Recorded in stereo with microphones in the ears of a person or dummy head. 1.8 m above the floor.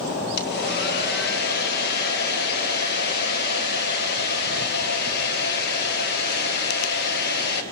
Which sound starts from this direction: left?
A hair dryer, at 0.4 s.